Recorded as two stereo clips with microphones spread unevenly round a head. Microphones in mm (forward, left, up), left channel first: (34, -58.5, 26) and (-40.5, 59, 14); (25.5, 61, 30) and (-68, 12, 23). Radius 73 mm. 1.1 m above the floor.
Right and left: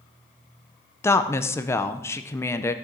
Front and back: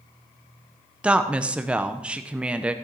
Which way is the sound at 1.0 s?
105° right.